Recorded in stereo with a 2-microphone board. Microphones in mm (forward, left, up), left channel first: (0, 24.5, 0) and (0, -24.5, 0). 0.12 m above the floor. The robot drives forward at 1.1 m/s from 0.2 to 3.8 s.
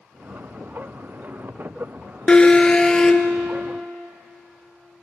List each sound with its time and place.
2.3 s an alarm: 20° left (ahead or behind), 1.3 m; by 3.3 s 10° left (ahead or behind), 2 m